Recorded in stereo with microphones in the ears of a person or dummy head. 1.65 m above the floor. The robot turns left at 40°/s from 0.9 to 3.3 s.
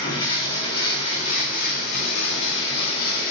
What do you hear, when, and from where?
0.0 s running water: 150° left, 1.2 m; by 3.3 s 55° left, 1.2 m